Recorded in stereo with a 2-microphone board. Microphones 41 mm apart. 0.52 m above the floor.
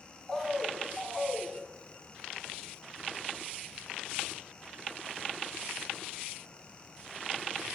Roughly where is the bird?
Centre.